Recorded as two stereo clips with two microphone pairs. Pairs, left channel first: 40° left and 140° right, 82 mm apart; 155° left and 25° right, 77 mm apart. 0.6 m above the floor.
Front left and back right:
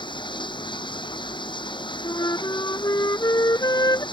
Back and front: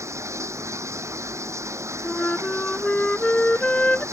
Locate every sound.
0.0 s running water: 25° left
2.0 s a flute: 80° left